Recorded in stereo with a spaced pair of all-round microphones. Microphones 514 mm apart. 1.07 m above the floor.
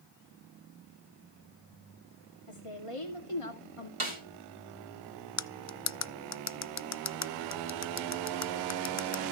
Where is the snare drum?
70° right (ahead or behind), 2.5 m.